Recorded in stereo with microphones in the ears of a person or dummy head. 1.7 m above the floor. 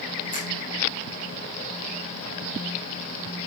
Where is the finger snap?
40° left (ahead or behind), 6 m.